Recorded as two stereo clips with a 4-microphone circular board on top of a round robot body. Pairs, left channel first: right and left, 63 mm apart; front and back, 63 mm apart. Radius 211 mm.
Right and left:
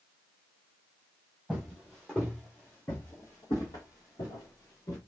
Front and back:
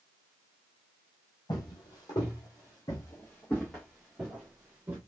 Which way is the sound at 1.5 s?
Straight ahead.